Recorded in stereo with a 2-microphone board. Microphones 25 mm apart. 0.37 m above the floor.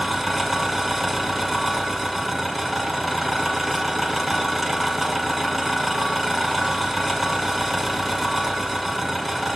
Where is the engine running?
Centre (ahead or behind), 1.5 m.